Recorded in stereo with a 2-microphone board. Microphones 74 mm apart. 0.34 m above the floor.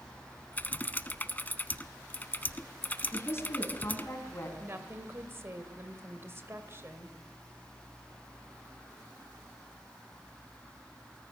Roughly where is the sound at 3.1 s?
Left.